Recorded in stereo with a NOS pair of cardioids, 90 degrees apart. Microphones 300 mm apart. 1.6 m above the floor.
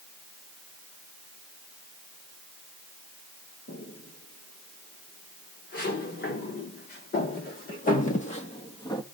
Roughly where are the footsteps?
Ahead left.